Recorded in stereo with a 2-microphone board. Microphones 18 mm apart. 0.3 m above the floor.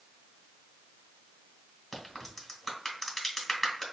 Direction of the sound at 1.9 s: 15° left (ahead or behind).